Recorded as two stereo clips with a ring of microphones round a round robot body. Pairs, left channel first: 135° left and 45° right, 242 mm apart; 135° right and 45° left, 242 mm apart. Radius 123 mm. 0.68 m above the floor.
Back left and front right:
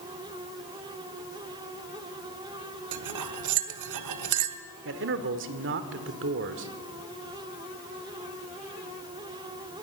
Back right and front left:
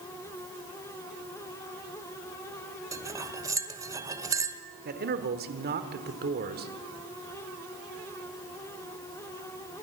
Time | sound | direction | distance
2.9 | cutlery clinking | 30° right | 1.3 m
4.8 | a man speaking | 5° right | 1.8 m